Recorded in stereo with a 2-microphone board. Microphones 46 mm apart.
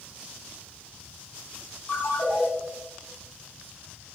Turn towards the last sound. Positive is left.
turn(degrees=55)  # may be behind; listen again after turning